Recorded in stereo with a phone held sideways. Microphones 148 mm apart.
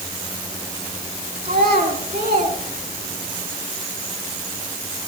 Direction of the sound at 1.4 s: 80° right.